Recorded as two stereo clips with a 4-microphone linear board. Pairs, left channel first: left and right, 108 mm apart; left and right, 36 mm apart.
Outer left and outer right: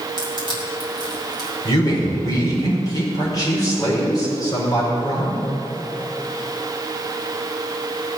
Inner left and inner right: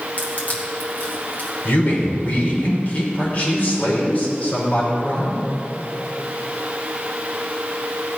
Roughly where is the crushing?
Left.